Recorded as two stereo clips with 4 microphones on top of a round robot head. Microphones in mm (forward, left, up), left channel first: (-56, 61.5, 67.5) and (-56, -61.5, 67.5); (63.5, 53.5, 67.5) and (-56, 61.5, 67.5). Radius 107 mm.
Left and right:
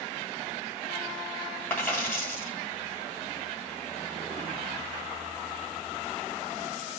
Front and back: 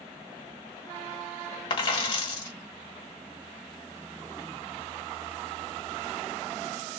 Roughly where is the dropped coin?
Ahead.